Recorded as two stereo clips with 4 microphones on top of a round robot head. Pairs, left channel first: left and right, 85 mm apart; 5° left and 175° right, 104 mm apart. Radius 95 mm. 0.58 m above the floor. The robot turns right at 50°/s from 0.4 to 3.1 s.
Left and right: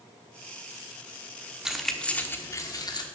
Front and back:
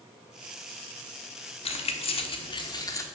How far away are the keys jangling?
About 1.2 m.